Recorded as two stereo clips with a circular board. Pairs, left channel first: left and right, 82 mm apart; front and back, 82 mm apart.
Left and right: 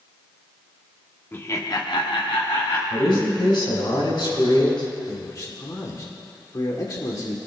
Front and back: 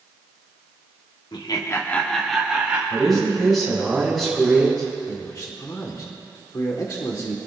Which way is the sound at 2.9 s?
90° left.